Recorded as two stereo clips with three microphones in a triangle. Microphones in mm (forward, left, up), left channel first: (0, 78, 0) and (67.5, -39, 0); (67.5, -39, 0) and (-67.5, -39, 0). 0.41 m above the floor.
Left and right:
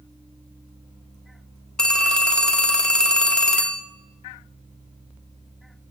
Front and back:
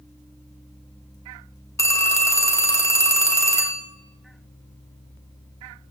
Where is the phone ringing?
40° left, 0.8 m.